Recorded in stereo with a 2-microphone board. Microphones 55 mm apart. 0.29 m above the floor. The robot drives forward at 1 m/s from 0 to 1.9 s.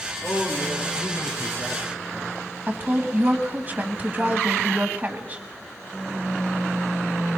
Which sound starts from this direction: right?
A woman speaking, at 2.7 s.